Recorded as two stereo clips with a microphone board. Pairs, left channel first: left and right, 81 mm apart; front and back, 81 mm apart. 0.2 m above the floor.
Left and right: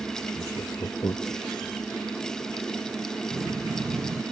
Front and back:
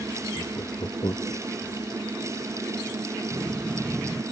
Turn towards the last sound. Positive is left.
turn(degrees=-75)